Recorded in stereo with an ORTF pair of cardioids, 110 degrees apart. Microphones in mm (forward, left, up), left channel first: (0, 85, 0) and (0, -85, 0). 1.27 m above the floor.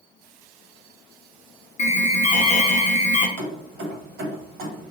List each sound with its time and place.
1.8 s an alarm: 45° left, 0.8 m
3.4 s keys jangling: 70° right, 1.1 m